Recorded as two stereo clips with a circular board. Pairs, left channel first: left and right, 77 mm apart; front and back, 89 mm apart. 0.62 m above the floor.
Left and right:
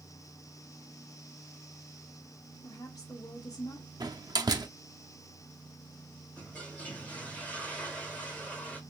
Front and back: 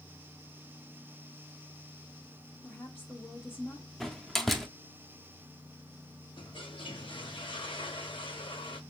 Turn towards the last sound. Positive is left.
turn(degrees=20)